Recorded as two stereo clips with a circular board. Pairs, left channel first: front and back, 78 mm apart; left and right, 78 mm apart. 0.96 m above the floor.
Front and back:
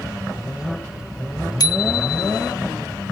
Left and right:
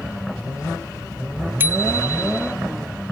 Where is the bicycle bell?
25° right.